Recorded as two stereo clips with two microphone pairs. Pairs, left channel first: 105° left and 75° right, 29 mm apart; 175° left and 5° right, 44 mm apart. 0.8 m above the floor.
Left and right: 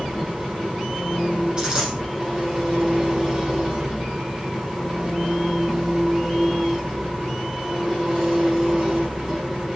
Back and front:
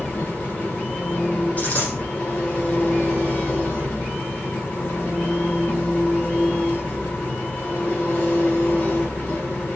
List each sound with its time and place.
0.0 s an engine running: 145° right, 5.5 m
1.6 s a dropped coin: 135° right, 9.5 m